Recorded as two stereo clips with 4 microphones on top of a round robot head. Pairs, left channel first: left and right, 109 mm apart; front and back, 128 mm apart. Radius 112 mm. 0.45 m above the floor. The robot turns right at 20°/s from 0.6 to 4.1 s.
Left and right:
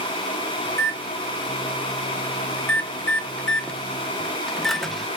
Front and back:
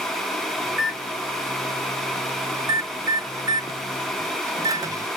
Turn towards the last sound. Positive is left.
turn(degrees=175)